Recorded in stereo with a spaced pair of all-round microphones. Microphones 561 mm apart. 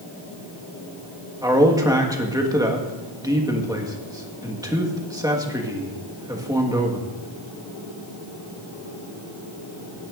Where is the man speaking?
5° right (ahead or behind), 1.4 m.